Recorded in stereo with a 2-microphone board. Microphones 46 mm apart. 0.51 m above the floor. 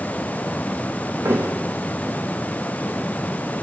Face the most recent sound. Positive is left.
turn(degrees=-65)  # may be behind; listen again after turning